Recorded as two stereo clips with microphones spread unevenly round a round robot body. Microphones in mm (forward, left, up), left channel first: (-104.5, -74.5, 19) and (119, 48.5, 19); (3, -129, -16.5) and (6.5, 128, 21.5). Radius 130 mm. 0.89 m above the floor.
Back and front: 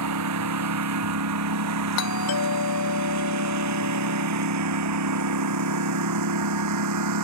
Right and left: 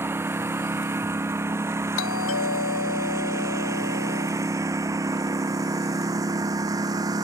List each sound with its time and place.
0.0 s a lawn mower: 10° left; by 7.2 s 15° left
2.0 s a doorbell: 125° right